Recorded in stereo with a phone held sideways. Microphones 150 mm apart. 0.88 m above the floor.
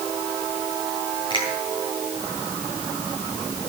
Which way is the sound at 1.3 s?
35° left (ahead or behind).